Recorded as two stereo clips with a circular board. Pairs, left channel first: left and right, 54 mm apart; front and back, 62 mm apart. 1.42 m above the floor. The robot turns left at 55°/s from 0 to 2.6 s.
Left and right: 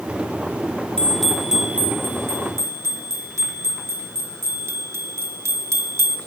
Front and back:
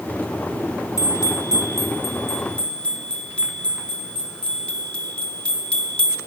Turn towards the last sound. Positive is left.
turn(degrees=-70)